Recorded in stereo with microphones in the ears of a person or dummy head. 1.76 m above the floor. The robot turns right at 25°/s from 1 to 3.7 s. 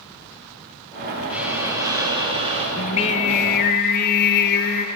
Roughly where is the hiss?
Behind.